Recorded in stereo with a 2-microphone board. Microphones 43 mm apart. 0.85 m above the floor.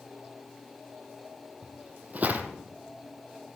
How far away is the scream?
No scream in this recording.